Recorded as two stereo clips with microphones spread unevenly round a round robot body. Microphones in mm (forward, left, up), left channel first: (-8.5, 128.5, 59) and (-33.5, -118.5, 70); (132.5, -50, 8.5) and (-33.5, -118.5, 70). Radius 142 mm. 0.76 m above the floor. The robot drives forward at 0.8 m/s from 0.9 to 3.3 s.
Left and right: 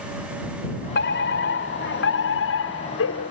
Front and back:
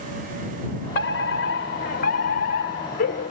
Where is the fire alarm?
35° left; by 3.3 s 50° left.